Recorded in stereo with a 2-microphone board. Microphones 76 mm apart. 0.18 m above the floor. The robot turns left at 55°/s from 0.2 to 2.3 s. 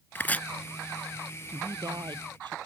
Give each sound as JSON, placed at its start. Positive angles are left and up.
{"t": 0.1, "sound": "chopping", "side_deg": 30}
{"t": 1.5, "sound": "a woman speaking", "azimuth_deg": -45}